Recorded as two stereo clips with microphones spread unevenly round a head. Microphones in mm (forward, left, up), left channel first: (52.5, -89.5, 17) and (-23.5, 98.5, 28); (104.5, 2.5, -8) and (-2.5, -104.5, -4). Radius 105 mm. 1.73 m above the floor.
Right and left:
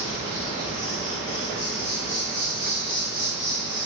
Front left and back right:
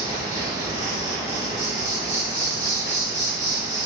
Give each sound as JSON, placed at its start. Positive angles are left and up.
{"t": 0.0, "sound": "an insect", "azimuth_deg": -100, "distance_m": 1.6}